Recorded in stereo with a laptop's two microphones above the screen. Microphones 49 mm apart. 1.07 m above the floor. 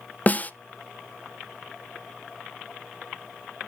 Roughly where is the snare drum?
Left.